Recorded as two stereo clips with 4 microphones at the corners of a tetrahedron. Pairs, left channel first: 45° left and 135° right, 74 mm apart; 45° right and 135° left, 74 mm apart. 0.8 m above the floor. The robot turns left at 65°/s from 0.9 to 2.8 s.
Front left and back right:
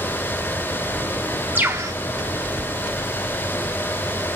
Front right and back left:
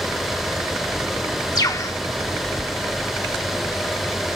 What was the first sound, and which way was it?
A bird, 70° right.